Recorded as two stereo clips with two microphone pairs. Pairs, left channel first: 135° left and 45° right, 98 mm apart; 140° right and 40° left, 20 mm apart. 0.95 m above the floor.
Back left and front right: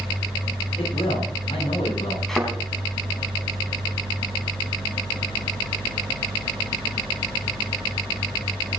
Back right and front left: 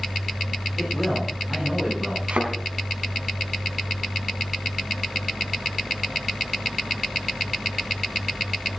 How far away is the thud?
About 4 m.